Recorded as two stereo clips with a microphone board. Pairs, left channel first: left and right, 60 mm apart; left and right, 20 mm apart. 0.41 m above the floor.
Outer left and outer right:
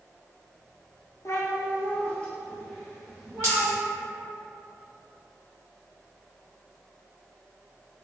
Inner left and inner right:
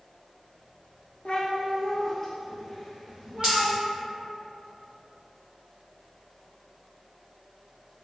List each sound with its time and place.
1.2 s a cat meowing: 60° left (ahead or behind), 0.6 m; by 3.7 s centre (ahead or behind), 1.7 m
3.4 s a dropped coin: 50° right (ahead or behind), 1.7 m